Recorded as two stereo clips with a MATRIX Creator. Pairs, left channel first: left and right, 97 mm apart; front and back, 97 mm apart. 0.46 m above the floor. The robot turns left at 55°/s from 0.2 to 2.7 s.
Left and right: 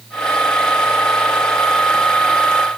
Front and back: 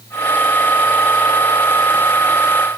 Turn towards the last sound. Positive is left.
No sound to turn to.